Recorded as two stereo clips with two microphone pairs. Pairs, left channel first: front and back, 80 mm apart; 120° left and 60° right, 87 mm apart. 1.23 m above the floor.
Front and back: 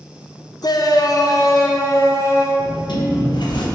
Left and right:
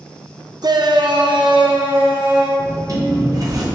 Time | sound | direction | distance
0.6 | a shout | 25° right | 0.6 m
2.6 | a sliding door | 15° right | 1.0 m